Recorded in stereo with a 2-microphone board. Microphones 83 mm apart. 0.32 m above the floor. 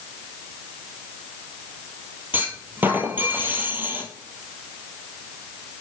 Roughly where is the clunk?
Right.